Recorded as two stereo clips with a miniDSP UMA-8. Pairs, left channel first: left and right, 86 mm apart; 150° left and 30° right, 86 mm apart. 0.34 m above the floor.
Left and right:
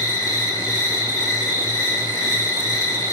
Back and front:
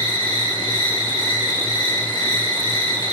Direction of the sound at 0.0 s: 135° left.